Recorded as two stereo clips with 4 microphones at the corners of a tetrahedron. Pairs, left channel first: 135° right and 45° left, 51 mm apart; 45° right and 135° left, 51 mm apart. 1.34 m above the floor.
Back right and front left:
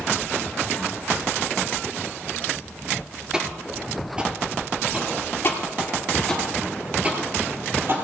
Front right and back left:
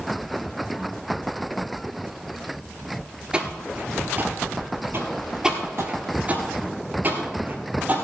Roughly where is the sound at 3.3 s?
Left.